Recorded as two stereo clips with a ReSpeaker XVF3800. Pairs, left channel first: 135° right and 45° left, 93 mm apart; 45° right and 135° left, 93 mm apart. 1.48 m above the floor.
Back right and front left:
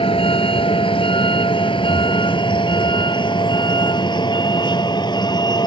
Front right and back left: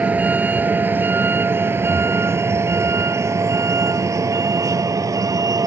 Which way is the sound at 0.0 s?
155° right.